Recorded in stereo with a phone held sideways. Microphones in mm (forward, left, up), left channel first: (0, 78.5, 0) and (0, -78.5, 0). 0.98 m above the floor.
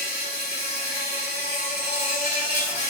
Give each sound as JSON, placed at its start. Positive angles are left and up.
{"t": 0.0, "sound": "an insect", "side_deg": 80, "distance_m": 1.2}